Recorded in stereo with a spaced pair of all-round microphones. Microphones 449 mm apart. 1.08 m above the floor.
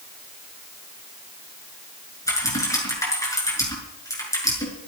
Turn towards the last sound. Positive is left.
turn(degrees=5)  # may be behind; listen again after turning